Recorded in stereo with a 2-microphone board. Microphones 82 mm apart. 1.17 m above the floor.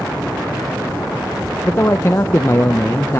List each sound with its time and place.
1.6 s a man speaking: 30° left (ahead or behind), 0.7 m